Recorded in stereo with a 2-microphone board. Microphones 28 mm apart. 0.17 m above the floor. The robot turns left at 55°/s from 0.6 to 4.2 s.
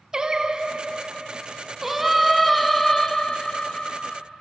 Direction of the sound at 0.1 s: 30° right (ahead or behind).